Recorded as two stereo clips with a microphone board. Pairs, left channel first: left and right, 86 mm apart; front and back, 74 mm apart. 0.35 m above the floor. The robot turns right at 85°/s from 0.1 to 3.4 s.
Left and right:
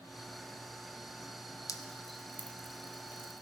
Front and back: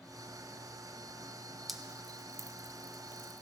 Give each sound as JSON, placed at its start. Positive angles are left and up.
{"t": 1.7, "sound": "dripping", "azimuth_deg": 90, "distance_m": 0.9}